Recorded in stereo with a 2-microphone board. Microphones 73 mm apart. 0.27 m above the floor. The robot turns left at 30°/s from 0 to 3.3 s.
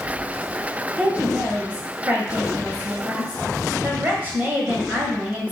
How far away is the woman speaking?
About 1.0 m.